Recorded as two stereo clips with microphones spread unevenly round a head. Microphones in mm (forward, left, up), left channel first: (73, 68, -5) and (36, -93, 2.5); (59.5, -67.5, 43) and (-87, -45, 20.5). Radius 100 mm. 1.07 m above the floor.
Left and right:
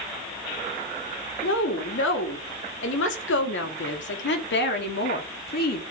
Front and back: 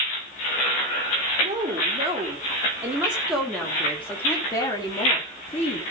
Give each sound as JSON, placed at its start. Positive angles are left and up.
{"t": 1.4, "sound": "a woman speaking", "azimuth_deg": 105, "distance_m": 3.0}